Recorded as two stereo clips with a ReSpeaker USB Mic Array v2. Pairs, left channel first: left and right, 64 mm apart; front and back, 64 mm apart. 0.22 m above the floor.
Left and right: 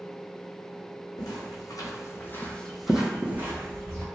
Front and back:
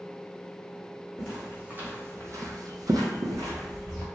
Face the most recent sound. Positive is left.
turn(degrees=-140)